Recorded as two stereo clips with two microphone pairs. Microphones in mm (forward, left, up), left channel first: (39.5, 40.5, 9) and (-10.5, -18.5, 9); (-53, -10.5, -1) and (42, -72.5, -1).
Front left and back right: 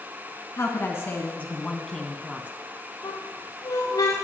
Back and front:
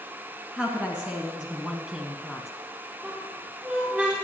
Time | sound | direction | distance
0.6 | a woman speaking | 45° left | 1.8 m
3.0 | a squeak | 35° left | 5 m